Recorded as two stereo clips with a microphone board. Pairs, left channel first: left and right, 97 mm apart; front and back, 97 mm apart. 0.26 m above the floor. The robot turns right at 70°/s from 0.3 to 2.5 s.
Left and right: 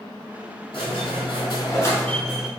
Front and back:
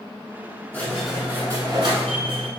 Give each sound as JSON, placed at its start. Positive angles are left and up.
{"t": 0.7, "sound": "a squeak", "azimuth_deg": 65, "distance_m": 1.1}